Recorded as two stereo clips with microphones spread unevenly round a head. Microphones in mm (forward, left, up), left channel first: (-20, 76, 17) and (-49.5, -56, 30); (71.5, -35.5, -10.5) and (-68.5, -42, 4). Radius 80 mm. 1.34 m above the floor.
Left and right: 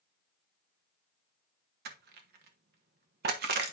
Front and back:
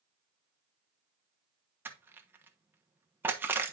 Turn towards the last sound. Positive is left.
turn(degrees=-100)